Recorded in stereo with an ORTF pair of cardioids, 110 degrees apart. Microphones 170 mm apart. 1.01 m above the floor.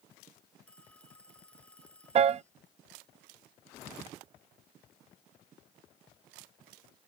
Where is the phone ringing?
5° left.